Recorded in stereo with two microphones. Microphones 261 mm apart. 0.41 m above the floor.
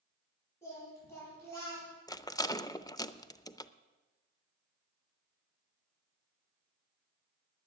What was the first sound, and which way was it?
Singing, 10° left (ahead or behind).